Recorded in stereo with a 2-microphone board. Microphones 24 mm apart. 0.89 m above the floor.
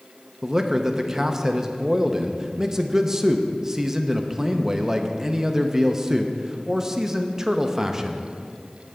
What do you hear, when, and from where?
0.4 s a man speaking: 25° right (ahead or behind), 0.6 m